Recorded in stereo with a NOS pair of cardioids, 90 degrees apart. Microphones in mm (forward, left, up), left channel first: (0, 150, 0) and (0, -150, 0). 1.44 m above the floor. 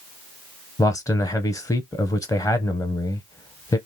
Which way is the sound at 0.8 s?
10° left.